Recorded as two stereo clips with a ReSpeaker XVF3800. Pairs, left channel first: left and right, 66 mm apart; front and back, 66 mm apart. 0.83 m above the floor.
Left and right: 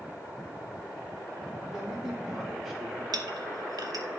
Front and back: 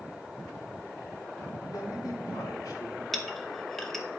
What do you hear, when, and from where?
1.7 s a man speaking: 10° right, 2.5 m
3.1 s a clink: 85° right, 0.8 m